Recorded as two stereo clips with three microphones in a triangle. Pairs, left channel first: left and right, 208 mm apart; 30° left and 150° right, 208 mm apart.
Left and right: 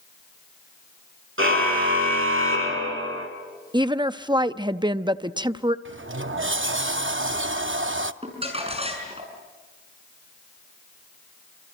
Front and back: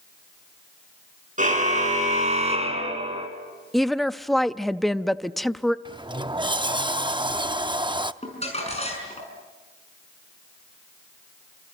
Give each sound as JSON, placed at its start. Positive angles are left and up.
{"t": 1.4, "sound": "a car horn", "azimuth_deg": -100, "distance_m": 4.5}
{"t": 3.7, "sound": "a woman speaking", "azimuth_deg": -60, "distance_m": 0.6}
{"t": 5.8, "sound": "a sliding door", "azimuth_deg": -80, "distance_m": 0.6}
{"t": 8.2, "sound": "crumpling", "azimuth_deg": -30, "distance_m": 6.0}